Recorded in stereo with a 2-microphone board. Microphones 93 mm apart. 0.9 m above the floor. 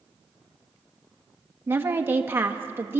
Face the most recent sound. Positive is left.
turn(degrees=-25)  # may be behind; listen again after turning